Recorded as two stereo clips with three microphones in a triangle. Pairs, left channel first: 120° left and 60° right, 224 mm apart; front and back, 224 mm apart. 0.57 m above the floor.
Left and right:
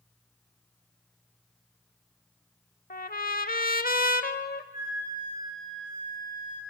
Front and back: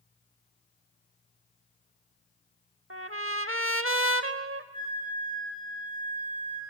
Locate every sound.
2.9 s a trumpet: 165° left, 0.7 m
4.7 s a flute: 70° left, 7.5 m